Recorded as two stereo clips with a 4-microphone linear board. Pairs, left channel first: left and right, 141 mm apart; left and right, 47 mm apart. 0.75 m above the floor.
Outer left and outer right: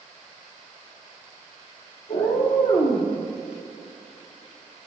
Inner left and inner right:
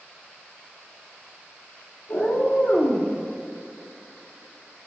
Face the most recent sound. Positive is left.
turn(degrees=35)  # may be behind; listen again after turning